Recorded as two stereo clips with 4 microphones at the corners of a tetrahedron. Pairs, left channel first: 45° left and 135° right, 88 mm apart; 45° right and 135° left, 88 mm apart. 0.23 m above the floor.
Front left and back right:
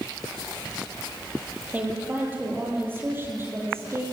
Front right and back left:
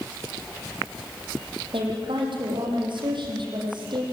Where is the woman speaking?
155° left, 9 m; by 4.0 s 165° left, 9 m.